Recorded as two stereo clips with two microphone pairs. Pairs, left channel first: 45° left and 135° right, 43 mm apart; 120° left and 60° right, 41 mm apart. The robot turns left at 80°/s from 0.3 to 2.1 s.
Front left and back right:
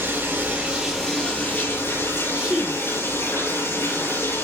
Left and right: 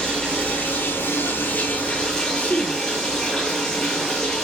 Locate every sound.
0.0 s running water: 175° right, 10 m; by 4.4 s 45° left, 10 m
2.3 s a woman speaking: 165° left, 1.8 m